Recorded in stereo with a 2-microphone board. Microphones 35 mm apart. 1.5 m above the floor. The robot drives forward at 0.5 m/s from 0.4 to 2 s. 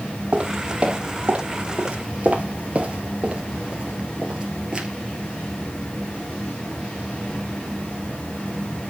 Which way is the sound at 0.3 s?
25° right (ahead or behind).